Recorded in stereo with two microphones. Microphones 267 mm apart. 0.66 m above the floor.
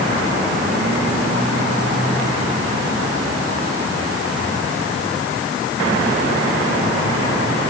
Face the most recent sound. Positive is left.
No sound to turn to.